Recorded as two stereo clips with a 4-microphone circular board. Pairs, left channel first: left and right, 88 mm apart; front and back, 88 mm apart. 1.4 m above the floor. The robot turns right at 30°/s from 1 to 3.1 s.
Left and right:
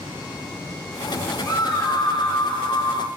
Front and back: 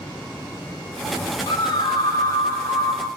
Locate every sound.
1.5 s a scream: 35° left, 1.4 m; by 3.1 s 85° left, 1.4 m